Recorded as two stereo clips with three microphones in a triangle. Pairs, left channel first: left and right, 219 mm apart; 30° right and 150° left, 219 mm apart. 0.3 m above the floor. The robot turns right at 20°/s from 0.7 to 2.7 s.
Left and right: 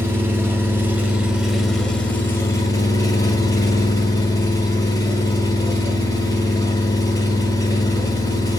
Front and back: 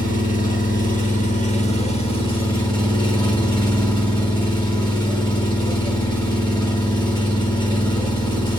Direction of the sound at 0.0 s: 15° right.